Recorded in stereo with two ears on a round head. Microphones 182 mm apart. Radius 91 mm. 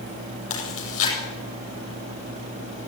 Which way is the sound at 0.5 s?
75° left (ahead or behind).